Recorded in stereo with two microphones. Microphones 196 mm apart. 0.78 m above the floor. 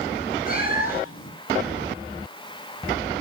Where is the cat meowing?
45° left (ahead or behind), 6.5 m.